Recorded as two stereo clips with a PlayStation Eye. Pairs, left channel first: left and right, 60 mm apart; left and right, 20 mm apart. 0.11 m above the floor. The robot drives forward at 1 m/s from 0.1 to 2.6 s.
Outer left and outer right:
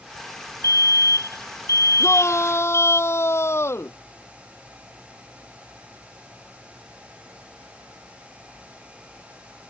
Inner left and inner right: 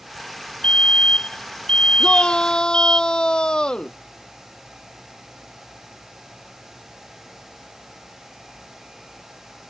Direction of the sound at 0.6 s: 60° left (ahead or behind).